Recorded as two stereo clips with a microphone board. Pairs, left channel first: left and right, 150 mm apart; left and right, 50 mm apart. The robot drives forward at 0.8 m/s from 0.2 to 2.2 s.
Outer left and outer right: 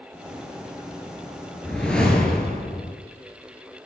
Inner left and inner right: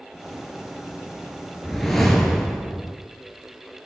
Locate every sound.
1.6 s a whoosh: 5° left (ahead or behind), 1.6 m